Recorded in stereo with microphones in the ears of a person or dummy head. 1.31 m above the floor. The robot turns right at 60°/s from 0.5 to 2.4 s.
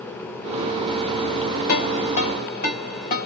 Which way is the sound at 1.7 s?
70° left (ahead or behind).